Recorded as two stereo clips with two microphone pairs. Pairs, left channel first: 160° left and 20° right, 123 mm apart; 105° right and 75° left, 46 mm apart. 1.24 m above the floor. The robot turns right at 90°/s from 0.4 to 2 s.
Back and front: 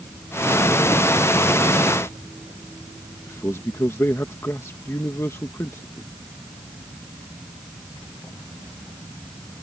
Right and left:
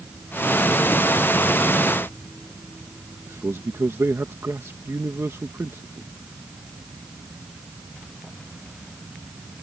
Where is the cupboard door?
I don't hear a cupboard door.